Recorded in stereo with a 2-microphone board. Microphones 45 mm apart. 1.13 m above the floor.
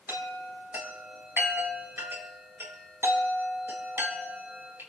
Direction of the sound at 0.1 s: 60° right (ahead or behind).